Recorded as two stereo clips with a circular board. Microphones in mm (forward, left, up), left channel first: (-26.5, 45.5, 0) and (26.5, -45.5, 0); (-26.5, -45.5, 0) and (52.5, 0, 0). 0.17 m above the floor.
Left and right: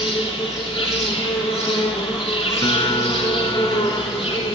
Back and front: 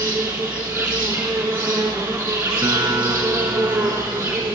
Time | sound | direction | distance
0.0 | an insect | 90° left | 2.5 m
2.6 | a guitar | 85° left | 1.1 m